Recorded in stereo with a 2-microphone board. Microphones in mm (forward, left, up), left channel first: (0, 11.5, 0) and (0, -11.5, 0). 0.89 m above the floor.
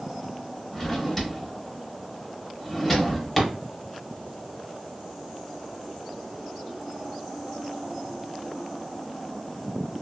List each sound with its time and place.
0.7 s a drawer: centre (ahead or behind), 0.8 m